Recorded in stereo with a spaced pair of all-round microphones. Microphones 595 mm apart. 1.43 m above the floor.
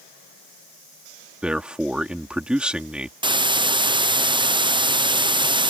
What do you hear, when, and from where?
1.4 s a man speaking: centre (ahead or behind)
3.2 s a hiss: 10° right (ahead or behind)